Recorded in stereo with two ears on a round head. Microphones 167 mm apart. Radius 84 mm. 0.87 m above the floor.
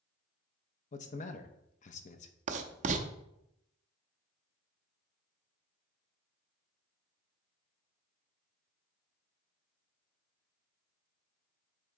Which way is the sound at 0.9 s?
40° left (ahead or behind).